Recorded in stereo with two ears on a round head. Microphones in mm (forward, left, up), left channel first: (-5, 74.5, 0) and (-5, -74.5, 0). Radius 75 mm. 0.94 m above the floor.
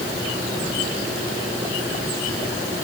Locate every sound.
Only background noise.